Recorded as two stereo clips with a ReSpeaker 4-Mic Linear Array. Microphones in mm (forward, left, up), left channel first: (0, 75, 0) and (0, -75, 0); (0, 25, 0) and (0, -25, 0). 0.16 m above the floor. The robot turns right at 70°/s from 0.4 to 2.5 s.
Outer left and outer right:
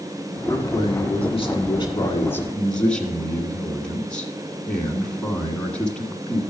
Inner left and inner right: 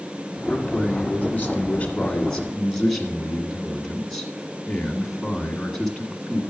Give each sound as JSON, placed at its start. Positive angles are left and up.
{"t": 0.5, "sound": "a man speaking", "azimuth_deg": 30, "distance_m": 1.7}